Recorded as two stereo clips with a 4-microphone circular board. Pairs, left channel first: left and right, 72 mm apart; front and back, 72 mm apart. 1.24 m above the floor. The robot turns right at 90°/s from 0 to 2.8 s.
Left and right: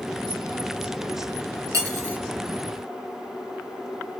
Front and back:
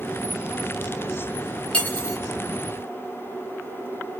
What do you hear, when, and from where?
1.7 s cutlery clinking: 70° right, 0.6 m; by 2.2 s 30° right, 0.6 m